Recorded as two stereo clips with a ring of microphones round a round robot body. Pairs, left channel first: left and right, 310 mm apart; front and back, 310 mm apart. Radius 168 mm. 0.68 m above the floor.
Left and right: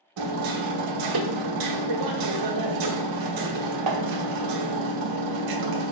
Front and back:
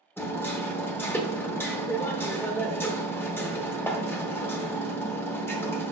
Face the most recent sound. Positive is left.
turn(degrees=-85)